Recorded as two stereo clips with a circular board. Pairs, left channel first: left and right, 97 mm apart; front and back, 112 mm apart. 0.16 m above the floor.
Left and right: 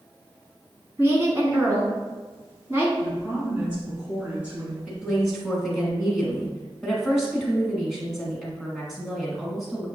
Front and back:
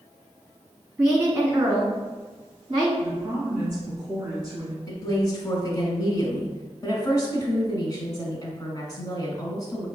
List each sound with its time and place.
1.0 s a woman speaking: 135° right, 1.5 m
3.0 s a woman speaking: 140° right, 1.8 m
4.9 s a woman speaking: straight ahead, 1.2 m